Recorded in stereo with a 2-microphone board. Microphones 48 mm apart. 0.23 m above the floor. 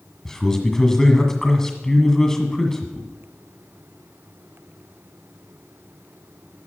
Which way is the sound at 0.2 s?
15° left (ahead or behind).